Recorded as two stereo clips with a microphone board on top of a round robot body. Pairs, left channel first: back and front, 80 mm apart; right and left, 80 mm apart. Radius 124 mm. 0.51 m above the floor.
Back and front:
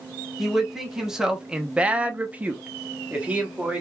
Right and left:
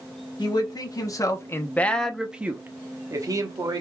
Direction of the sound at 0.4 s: 85° right.